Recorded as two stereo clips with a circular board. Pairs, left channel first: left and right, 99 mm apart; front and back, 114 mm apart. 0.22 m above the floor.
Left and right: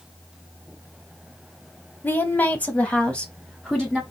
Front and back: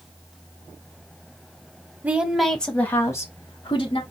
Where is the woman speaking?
125° left, 0.9 m; by 4.0 s 5° left, 1.3 m.